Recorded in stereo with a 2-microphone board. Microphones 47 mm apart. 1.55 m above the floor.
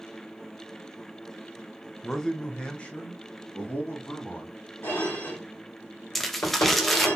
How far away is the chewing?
I don't hear chewing.